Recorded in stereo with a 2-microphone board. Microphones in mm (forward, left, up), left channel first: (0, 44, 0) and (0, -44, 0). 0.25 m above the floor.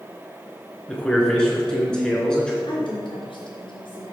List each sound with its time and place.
0.9 s a man speaking: 10° left (ahead or behind), 3 m
2.7 s a woman speaking: 70° left (ahead or behind), 3.5 m